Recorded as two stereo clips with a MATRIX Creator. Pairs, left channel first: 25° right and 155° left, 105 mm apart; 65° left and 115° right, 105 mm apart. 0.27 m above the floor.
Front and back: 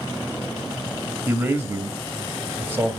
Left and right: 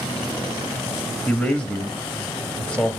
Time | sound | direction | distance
1.3 | a man speaking | 135° left | 1.2 m